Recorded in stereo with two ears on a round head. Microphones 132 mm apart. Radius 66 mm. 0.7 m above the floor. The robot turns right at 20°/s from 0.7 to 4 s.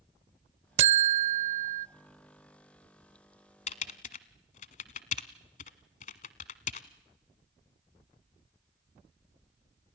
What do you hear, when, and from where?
0.8 s a buzzer: 45° right (ahead or behind), 0.6 m; by 1.9 s 55° right (ahead or behind), 0.6 m
3.7 s typing on a keyboard: 45° left (ahead or behind), 1.2 m; by 6.9 s 55° left (ahead or behind), 1.2 m